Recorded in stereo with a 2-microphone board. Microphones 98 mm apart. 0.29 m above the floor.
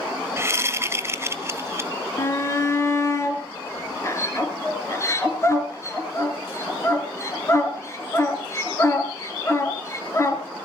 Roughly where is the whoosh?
Right.